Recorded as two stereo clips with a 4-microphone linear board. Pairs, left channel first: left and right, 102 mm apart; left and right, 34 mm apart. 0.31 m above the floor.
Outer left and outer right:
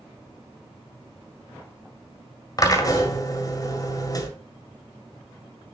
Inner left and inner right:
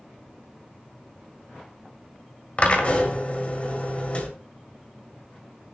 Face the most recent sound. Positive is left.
turn(degrees=35)  # may be behind; listen again after turning